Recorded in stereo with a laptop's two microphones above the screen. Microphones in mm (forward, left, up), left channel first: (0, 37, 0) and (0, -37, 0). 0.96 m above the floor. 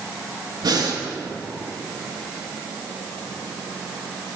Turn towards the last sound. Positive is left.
turn(degrees=-65)  # may be behind; listen again after turning